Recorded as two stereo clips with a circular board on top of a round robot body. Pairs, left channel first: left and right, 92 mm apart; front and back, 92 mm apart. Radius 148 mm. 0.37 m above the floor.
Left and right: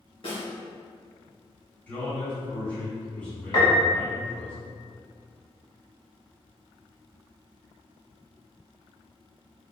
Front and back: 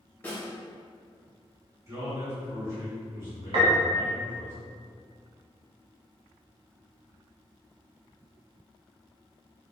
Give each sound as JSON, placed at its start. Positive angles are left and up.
{"t": 0.2, "sound": "a snare drum", "azimuth_deg": 70, "distance_m": 1.8}
{"t": 1.9, "sound": "a man speaking", "azimuth_deg": 150, "distance_m": 1.5}
{"t": 3.5, "sound": "a piano", "azimuth_deg": 140, "distance_m": 0.6}